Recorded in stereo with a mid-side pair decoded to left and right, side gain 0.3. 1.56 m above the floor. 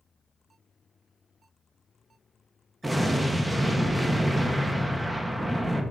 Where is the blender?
I don't hear a blender.